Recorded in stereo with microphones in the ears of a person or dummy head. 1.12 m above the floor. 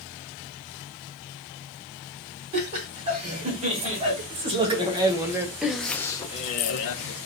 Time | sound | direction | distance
2.5 | laughter | 35° right (ahead or behind) | 2 m